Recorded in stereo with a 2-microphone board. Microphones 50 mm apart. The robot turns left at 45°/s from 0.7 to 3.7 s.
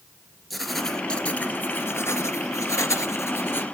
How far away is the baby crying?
No baby crying in this recording.